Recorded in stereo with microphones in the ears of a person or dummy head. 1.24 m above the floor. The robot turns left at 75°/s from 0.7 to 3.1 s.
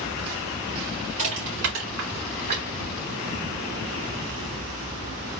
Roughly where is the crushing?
Right.